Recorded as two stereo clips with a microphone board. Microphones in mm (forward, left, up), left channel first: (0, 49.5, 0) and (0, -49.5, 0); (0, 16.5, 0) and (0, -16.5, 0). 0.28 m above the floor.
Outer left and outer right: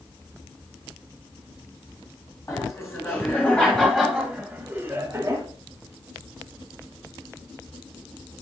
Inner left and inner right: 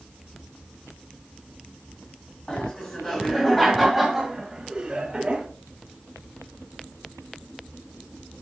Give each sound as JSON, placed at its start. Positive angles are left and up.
{"t": 2.5, "sound": "laughter", "side_deg": 30, "distance_m": 1.8}